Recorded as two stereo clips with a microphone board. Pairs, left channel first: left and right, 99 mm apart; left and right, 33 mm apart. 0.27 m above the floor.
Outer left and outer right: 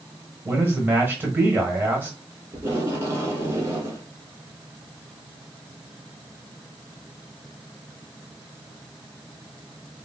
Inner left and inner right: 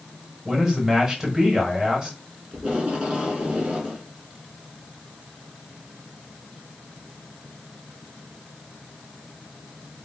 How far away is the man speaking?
About 1.2 m.